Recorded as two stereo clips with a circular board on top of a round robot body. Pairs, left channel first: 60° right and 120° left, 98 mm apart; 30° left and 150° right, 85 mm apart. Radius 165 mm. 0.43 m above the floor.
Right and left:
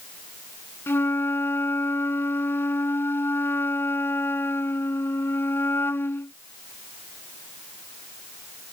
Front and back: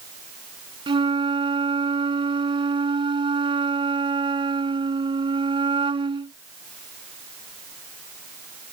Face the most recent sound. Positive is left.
turn(degrees=-130)